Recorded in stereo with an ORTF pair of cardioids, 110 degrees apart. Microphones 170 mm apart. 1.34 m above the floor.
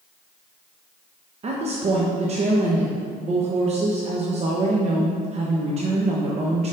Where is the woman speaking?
40° right, 1.1 m.